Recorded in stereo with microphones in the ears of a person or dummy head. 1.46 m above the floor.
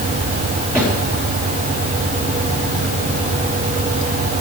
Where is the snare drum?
15° right (ahead or behind), 5 m.